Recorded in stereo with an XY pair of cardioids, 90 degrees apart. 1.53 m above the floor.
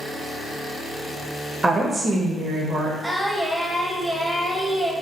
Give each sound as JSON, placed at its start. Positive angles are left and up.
{"t": 1.6, "sound": "a woman speaking", "azimuth_deg": -25, "distance_m": 0.5}
{"t": 3.0, "sound": "singing", "azimuth_deg": -5, "distance_m": 0.5}